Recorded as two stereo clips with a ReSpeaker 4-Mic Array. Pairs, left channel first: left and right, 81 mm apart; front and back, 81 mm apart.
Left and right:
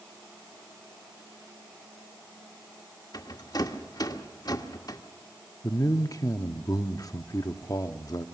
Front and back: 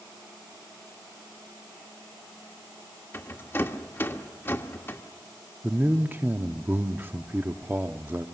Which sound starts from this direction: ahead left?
A rattle, at 3.1 s.